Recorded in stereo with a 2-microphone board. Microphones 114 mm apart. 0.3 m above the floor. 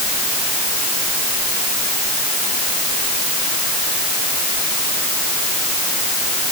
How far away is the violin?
No violin in this recording.